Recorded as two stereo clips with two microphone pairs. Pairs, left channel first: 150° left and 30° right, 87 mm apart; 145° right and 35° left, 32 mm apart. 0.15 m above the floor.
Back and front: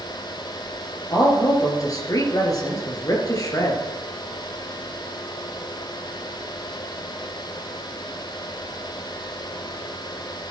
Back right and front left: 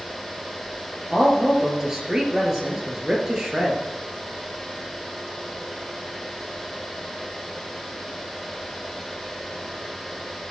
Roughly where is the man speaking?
Left.